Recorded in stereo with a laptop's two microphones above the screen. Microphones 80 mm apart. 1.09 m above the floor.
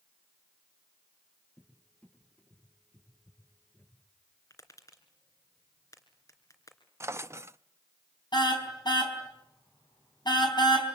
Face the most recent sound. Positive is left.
turn(degrees=65)  # may be behind; listen again after turning